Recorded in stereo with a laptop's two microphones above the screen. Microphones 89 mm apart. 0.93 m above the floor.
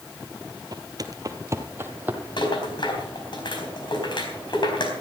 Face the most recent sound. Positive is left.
turn(degrees=60)  # may be behind; listen again after turning